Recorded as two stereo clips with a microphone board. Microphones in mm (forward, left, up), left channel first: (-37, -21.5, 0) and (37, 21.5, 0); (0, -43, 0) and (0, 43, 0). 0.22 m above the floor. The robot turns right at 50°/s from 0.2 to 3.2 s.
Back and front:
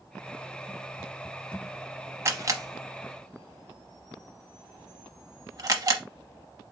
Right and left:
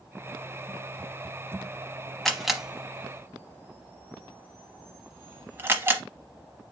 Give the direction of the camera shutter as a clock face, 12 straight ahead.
12 o'clock.